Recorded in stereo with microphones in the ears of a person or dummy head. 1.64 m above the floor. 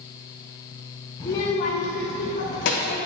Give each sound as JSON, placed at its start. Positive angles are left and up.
{"t": 1.2, "sound": "a child speaking", "side_deg": 15, "distance_m": 0.6}